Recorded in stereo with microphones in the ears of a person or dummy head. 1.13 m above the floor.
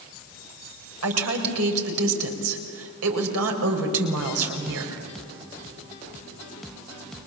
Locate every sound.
1.0 s a woman speaking: 85° right, 5 m